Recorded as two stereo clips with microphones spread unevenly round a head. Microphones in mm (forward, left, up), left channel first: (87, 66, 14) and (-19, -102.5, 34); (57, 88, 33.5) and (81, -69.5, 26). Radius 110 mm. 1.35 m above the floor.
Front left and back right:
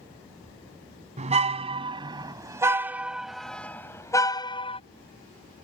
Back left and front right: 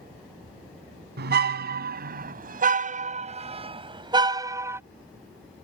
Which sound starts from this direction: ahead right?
A car horn, at 1.2 s.